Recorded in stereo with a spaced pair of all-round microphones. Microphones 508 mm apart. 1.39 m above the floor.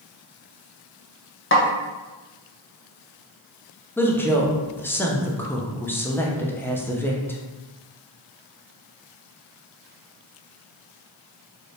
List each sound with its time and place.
1.5 s a snare drum: 25° left (ahead or behind), 0.6 m
4.0 s a woman speaking: 5° left (ahead or behind), 0.5 m